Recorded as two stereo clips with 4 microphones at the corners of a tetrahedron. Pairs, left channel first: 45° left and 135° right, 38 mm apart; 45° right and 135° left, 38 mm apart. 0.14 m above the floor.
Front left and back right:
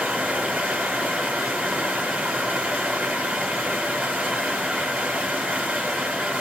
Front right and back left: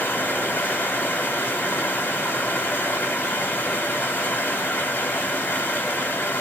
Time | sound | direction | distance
0.0 | running water | 90° right | 1.2 m